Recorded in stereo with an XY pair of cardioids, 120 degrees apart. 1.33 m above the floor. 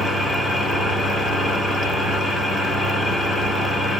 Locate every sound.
0.0 s an engine running: 10° right, 3 m